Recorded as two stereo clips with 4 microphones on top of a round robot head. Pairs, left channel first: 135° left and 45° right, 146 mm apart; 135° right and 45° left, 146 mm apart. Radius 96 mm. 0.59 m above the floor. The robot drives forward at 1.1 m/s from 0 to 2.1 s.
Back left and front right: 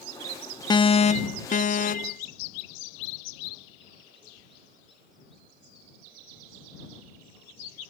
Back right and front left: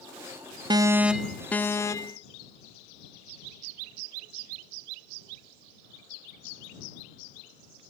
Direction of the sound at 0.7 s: 90° left.